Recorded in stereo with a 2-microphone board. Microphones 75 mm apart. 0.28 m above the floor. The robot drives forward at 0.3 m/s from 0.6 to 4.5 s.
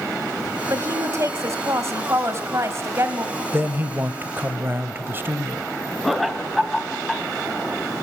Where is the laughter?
Centre (ahead or behind), 1.8 m.